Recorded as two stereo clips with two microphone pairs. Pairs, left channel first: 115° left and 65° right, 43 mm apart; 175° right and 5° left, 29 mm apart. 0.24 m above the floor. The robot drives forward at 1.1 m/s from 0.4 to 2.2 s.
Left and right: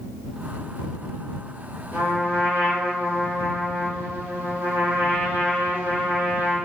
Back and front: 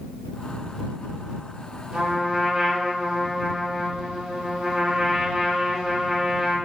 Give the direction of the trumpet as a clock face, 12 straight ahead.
2 o'clock.